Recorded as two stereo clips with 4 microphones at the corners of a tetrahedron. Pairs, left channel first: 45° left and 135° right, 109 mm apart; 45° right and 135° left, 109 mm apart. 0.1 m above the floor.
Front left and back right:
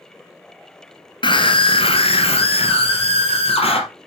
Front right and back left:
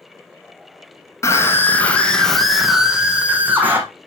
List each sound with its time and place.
1.2 s a scream: 15° left, 2.5 m; by 3.8 s 65° left, 3.5 m